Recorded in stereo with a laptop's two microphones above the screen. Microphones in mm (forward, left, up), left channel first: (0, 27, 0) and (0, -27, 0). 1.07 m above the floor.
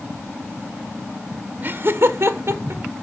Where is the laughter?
40° right (ahead or behind), 0.7 m; by 2.8 s 60° right (ahead or behind), 1.3 m.